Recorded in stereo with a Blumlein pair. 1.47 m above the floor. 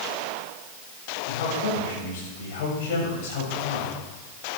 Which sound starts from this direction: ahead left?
A man speaking, at 1.3 s.